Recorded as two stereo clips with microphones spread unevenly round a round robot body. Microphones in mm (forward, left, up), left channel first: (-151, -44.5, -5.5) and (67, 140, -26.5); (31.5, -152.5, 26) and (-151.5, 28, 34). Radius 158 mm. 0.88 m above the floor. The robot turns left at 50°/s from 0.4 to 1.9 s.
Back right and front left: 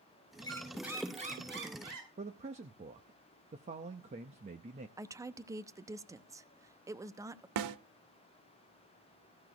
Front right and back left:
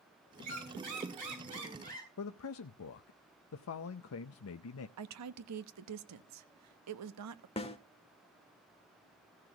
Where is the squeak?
150° left, 6.5 m; by 2.1 s 75° left, 6.5 m.